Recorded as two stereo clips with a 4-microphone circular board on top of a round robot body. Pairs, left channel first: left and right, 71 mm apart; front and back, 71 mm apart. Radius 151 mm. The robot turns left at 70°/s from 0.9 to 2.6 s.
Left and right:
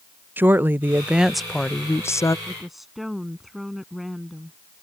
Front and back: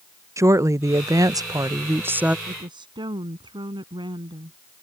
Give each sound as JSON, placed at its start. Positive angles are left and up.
{"t": 0.4, "sound": "a woman speaking", "azimuth_deg": -150}
{"t": 2.5, "sound": "a woman speaking", "azimuth_deg": -170}